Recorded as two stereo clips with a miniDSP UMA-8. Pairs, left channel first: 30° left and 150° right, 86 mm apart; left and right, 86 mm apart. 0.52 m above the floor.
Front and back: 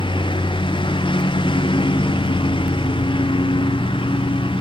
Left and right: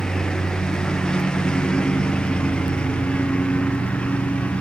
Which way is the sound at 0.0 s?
5° left.